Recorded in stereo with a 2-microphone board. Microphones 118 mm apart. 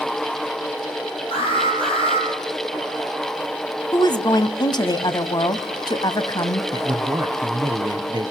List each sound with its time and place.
1.3 s an alarm: 50° left (ahead or behind), 9 m
3.9 s a woman speaking: 35° left (ahead or behind), 1.1 m
6.7 s a man speaking: 40° right (ahead or behind), 1.2 m